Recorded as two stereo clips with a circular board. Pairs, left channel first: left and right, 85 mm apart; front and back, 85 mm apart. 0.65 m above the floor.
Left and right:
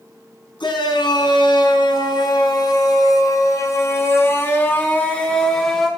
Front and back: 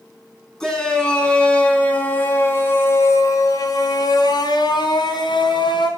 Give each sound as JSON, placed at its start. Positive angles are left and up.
{"t": 0.6, "sound": "a shout", "azimuth_deg": 85, "distance_m": 5.5}